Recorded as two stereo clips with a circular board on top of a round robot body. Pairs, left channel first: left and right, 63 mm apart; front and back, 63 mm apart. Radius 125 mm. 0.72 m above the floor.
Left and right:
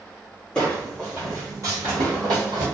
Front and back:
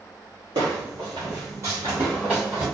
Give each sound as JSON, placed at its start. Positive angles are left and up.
{"t": 0.6, "sound": "footsteps", "azimuth_deg": 165, "distance_m": 1.0}